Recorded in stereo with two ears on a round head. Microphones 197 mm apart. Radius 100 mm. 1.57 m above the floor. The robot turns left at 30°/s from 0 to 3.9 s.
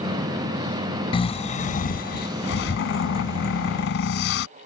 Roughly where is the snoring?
Behind left.